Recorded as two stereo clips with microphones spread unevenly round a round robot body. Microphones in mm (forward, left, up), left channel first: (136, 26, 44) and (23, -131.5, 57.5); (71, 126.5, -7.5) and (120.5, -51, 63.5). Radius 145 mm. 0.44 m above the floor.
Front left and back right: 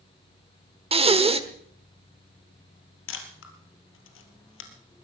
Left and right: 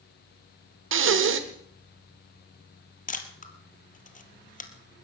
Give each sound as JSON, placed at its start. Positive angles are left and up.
{"t": 0.9, "sound": "breathing", "azimuth_deg": -70, "distance_m": 1.5}
{"t": 3.1, "sound": "a camera shutter", "azimuth_deg": 55, "distance_m": 2.0}